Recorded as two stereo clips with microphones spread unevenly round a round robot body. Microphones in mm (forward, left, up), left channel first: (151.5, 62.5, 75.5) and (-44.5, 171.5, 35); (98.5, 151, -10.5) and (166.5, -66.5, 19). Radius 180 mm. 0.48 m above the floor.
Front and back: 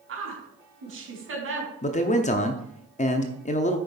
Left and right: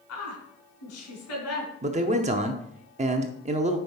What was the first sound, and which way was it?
A woman speaking, 130° left.